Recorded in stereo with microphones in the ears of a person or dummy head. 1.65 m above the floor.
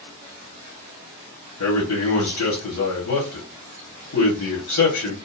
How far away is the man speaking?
About 1.1 m.